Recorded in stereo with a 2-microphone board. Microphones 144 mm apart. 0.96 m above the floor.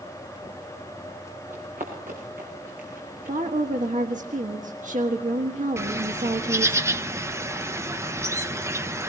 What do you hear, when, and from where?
1.5 s running footsteps: 75° right (ahead or behind), 5.5 m; by 3.4 s 80° right, 4.5 m
3.3 s a woman speaking: 65° right (ahead or behind), 1.4 m
5.8 s a bird: 20° right (ahead or behind), 0.6 m